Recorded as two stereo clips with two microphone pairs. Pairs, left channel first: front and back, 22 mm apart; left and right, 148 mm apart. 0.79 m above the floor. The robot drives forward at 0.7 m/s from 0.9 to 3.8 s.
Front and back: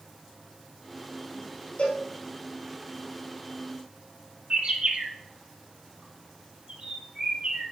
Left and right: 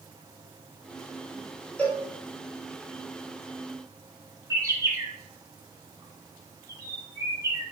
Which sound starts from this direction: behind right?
A bird, at 4.5 s.